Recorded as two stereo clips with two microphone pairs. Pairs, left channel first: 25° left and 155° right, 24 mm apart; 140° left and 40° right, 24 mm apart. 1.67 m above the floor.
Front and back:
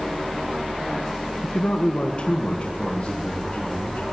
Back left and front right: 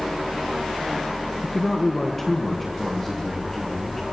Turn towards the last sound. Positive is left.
turn(degrees=60)